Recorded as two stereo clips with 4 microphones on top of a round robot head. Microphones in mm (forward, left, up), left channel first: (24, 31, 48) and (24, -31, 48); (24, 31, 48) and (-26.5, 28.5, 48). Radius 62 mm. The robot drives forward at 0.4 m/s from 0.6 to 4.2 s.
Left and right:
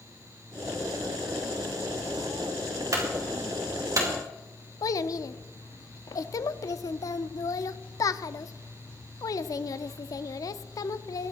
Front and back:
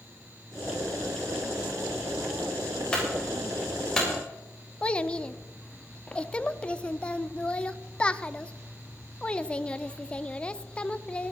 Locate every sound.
2.9 s a clunk: 75° right, 4 m; by 4.1 s 80° right, 3.5 m
4.8 s a child speaking: 70° left, 0.6 m